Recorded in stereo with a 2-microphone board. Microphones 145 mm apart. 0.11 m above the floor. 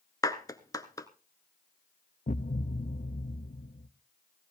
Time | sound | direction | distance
0.2 | a clap | 25° left (ahead or behind) | 1.1 m
2.3 | a thud | 70° left (ahead or behind) | 1.3 m